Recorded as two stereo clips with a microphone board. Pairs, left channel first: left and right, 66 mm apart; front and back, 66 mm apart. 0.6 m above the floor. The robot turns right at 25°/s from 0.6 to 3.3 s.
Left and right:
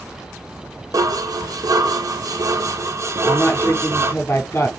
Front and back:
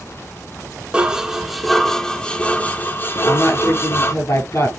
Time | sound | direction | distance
0.9 | dishes clattering | 105° right | 1.1 m
3.2 | a woman speaking | 40° left | 6.5 m